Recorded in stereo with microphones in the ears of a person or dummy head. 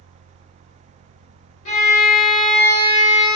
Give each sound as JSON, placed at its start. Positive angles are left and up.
{"t": 1.6, "sound": "a violin", "side_deg": 45, "distance_m": 0.9}